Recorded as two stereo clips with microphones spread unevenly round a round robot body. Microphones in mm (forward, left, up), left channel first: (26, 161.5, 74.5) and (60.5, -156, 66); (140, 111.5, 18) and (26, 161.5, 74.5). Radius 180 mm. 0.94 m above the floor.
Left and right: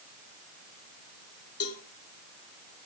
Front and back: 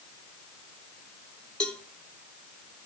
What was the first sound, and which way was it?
A cowbell, 50° left.